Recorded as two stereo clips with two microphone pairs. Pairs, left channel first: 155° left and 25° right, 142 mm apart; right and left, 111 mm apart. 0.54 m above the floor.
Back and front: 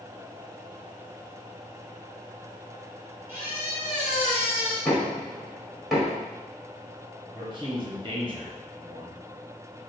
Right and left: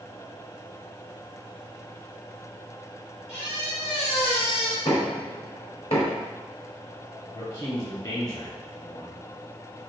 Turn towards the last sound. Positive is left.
turn(degrees=-55)